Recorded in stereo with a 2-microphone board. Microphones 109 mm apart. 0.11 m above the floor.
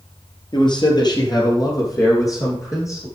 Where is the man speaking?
45° left (ahead or behind), 2.5 m; by 3.1 s 30° left (ahead or behind), 5 m.